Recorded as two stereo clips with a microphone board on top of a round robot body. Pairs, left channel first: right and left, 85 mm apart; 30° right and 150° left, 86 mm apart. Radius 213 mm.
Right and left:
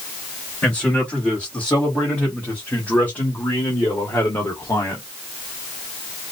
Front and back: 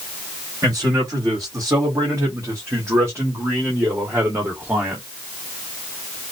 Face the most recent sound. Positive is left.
turn(degrees=-145)